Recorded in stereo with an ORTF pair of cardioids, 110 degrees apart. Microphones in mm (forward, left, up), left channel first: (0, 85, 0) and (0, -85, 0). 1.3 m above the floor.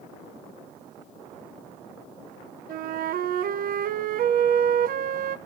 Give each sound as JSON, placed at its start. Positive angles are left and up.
{"t": 2.7, "sound": "a flute", "azimuth_deg": -60, "distance_m": 0.8}